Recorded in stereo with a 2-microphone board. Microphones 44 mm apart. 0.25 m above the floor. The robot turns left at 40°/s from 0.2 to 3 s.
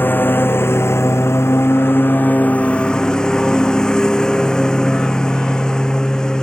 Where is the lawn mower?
130° left; by 6.4 s 15° left.